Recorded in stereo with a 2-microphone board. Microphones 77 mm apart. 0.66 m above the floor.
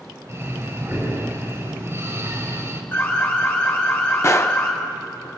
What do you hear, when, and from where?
0.3 s breathing: 35° right (ahead or behind), 2.5 m
2.9 s an alarm: 30° left (ahead or behind), 4 m
4.2 s a gunshot: 35° left (ahead or behind), 0.8 m